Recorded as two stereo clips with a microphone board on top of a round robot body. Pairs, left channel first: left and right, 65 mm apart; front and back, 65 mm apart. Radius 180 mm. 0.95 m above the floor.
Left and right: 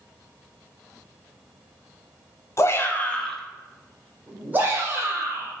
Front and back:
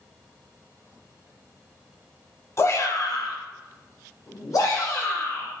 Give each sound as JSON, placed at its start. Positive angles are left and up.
{"t": 2.6, "sound": "a shout", "azimuth_deg": 40, "distance_m": 0.9}